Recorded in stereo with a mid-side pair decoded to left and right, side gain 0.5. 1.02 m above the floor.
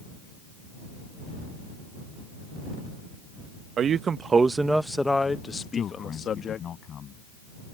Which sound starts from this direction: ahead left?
A man speaking, at 5.6 s.